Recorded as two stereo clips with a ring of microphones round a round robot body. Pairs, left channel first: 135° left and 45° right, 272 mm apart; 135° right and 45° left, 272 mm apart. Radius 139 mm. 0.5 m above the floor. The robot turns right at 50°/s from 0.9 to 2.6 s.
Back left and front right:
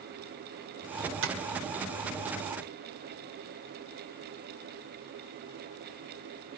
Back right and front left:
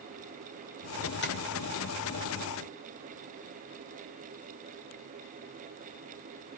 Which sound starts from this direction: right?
Tapping, at 1.2 s.